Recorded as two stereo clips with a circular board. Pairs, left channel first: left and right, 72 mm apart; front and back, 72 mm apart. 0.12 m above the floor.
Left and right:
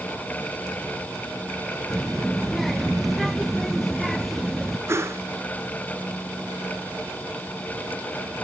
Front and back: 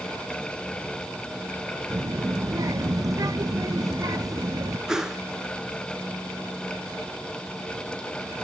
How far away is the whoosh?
About 1.3 m.